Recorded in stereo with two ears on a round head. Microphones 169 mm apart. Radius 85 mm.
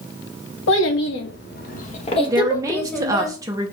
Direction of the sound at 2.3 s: 20° right (ahead or behind).